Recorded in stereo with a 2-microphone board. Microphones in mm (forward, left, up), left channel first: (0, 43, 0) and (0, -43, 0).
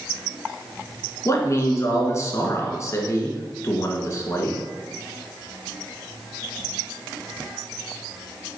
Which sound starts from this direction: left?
A man speaking, at 1.2 s.